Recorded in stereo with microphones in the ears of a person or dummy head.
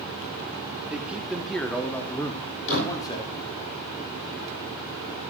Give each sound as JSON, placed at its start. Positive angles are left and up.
{"t": 0.9, "sound": "a man speaking", "side_deg": -10, "distance_m": 3.5}
{"t": 2.7, "sound": "a door slam", "side_deg": 60, "distance_m": 4.5}